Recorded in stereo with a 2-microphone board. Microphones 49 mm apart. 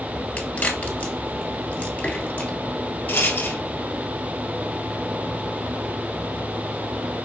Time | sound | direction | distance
0.4 | a crack | 30° left (ahead or behind) | 1.9 m
3.1 | a rattle | 50° left (ahead or behind) | 1.1 m